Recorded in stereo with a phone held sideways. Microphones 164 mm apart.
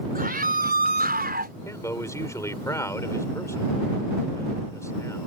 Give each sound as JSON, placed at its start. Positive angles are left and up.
{"t": 0.1, "sound": "a scream", "side_deg": -65}
{"t": 1.6, "sound": "a man speaking", "side_deg": 20}